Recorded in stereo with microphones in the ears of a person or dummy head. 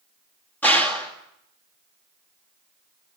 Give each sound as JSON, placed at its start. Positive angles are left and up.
{"t": 0.6, "sound": "a gunshot", "side_deg": 15, "distance_m": 2.5}